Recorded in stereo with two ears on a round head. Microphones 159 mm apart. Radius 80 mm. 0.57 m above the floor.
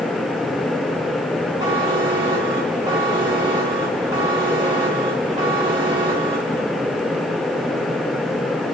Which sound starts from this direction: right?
A buzzer, at 1.6 s.